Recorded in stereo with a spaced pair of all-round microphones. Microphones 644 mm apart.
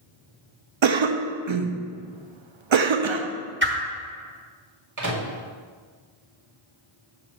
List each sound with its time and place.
0.8 s a cough: 50° right (ahead or behind), 0.5 m
3.6 s a whoosh: 20° right (ahead or behind), 1.0 m
5.0 s a microwave: 25° right (ahead or behind), 1.4 m